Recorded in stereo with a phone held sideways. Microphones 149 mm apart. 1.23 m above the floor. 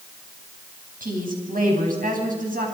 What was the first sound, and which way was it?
A woman speaking, 85° right.